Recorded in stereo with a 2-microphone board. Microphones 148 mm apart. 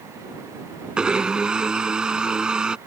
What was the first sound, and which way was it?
A blender, 5° right (ahead or behind).